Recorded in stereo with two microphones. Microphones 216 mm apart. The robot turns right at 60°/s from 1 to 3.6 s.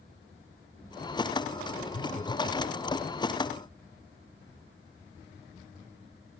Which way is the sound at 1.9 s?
105° left.